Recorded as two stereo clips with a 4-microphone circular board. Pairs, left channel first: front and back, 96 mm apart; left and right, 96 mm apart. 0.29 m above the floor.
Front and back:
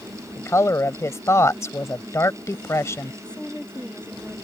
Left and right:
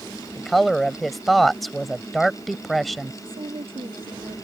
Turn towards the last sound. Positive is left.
turn(degrees=-80)